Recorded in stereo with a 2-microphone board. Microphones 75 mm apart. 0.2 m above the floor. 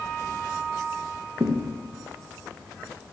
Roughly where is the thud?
Right.